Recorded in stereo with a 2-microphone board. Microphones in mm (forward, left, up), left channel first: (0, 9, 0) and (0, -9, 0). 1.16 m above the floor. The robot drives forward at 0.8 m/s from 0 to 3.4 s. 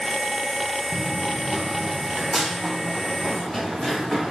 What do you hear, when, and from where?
0.9 s running footsteps: 35° right (ahead or behind), 1.4 m; by 4.3 s 20° right (ahead or behind), 4 m